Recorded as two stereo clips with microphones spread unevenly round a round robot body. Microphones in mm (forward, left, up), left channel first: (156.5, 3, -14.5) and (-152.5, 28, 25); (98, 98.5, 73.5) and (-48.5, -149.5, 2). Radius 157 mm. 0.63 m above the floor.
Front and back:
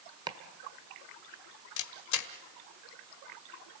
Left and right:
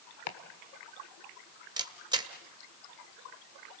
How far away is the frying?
I don't hear frying.